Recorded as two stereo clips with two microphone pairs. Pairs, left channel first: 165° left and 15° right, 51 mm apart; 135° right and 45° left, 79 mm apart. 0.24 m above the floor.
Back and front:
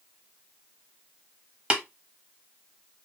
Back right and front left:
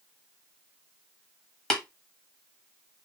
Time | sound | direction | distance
1.7 | tapping | 60° right | 1.0 m